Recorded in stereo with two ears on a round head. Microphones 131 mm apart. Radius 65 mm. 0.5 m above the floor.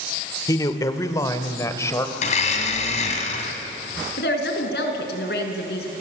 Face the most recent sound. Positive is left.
turn(degrees=80)